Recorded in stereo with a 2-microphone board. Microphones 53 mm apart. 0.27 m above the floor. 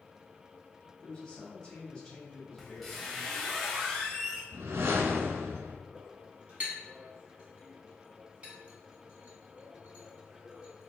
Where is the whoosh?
55° right (ahead or behind), 0.5 m.